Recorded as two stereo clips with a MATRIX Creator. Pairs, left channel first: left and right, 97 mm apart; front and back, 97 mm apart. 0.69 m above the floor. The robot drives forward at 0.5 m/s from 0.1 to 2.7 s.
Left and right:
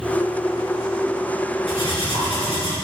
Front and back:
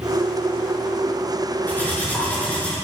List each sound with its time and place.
1.7 s cutlery clinking: 70° left, 5.5 m; by 2.8 s 75° left, 5.5 m